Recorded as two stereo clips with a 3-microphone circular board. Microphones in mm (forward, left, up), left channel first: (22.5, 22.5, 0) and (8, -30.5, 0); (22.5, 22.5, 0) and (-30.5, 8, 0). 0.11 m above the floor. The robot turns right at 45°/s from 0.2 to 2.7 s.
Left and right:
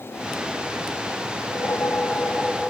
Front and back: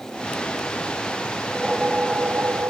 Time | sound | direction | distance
1.4 | a whoosh | 105° left | ?